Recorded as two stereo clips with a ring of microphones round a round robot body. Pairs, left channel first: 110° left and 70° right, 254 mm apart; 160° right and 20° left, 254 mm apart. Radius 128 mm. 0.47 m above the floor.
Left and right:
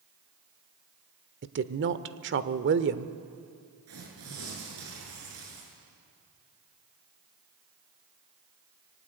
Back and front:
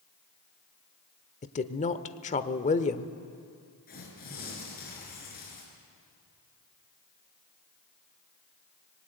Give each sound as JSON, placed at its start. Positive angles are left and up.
{"t": 1.4, "sound": "a woman speaking", "azimuth_deg": -100, "distance_m": 1.1}
{"t": 3.9, "sound": "tearing paper", "azimuth_deg": -100, "distance_m": 7.0}